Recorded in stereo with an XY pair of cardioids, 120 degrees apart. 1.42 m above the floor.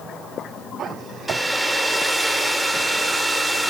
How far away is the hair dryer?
About 2.5 m.